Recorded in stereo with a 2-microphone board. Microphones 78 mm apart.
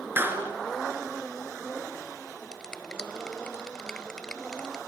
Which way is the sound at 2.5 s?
10° left (ahead or behind).